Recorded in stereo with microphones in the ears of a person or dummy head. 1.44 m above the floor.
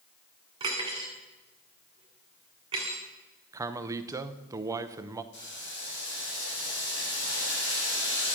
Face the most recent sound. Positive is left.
turn(degrees=60)  # may be behind; listen again after turning